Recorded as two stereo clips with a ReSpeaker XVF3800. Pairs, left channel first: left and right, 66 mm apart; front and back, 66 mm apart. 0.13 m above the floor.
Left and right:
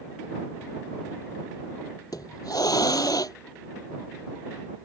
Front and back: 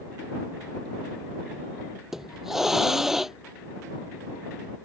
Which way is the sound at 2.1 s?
95° left.